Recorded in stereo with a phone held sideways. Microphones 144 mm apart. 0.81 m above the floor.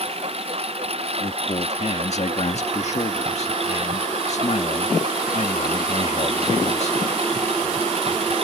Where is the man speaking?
50° left (ahead or behind).